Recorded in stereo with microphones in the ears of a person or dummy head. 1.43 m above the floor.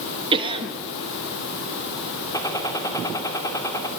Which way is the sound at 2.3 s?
25° left (ahead or behind).